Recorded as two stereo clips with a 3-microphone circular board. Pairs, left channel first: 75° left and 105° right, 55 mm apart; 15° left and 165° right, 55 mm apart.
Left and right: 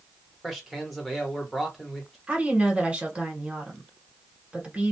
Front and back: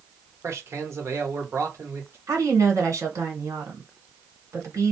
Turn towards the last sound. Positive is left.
turn(degrees=180)